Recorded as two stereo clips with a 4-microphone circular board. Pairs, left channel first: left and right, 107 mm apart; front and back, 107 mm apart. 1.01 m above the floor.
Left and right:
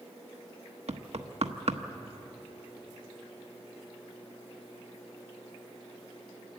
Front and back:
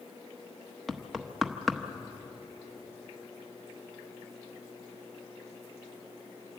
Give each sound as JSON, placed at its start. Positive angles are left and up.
{"t": 0.9, "sound": "knocking", "azimuth_deg": -90, "distance_m": 1.0}